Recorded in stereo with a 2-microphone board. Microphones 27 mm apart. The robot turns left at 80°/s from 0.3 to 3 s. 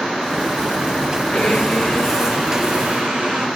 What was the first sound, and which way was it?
A blender, 75° left.